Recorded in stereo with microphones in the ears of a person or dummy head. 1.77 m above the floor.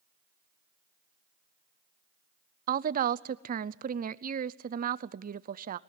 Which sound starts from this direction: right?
A woman speaking, at 2.7 s.